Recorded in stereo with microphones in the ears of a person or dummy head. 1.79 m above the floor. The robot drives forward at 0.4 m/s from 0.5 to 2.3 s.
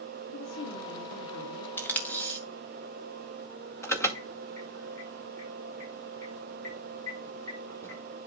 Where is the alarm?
15° left (ahead or behind), 1.7 m.